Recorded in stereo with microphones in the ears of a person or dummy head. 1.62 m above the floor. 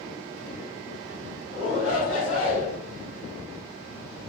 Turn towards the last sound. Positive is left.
turn(degrees=80)